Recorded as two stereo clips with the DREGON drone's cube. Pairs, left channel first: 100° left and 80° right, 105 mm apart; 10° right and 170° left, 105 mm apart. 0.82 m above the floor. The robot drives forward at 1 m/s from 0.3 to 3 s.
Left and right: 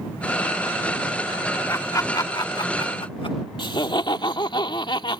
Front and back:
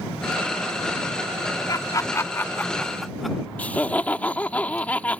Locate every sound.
1.7 s laughter: 40° left; by 3.4 s 80° left
3.6 s laughter: 65° left